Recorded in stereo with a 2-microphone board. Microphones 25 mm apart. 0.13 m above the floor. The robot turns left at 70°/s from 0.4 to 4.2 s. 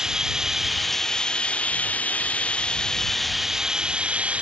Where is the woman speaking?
No woman speaking in this recording.